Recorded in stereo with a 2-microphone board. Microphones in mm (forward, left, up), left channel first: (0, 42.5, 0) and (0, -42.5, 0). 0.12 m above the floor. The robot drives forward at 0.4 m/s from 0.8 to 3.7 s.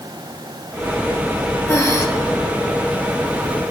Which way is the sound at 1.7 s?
35° left (ahead or behind).